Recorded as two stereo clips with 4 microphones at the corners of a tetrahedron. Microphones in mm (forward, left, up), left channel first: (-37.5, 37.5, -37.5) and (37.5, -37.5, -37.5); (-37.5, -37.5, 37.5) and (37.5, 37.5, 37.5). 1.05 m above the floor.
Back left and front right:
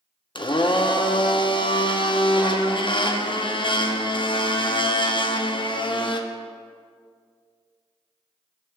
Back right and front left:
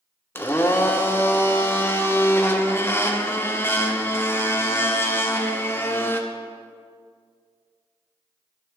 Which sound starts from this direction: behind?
A blender, at 0.3 s.